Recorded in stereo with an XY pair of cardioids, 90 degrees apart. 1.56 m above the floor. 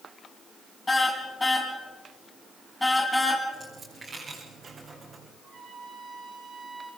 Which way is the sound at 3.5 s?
45° right.